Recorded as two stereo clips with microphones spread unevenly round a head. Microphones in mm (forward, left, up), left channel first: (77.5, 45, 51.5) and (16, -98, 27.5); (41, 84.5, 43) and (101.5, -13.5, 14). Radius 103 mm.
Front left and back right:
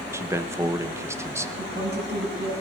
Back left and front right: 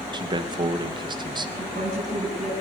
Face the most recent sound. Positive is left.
turn(degrees=-105)